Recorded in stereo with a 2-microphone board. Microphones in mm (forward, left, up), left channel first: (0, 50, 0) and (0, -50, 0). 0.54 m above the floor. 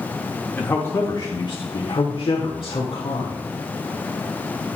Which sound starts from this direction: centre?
A man speaking, at 0.6 s.